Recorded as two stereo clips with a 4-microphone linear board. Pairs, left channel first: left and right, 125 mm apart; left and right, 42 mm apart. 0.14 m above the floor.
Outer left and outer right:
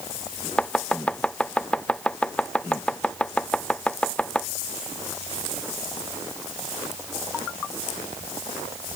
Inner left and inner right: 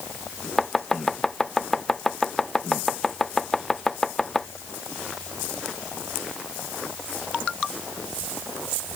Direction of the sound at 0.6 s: 10° left (ahead or behind).